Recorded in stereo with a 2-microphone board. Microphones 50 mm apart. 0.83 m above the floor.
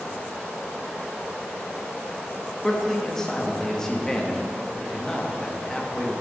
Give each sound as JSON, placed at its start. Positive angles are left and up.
{"t": 2.6, "sound": "a man speaking", "side_deg": 10, "distance_m": 1.2}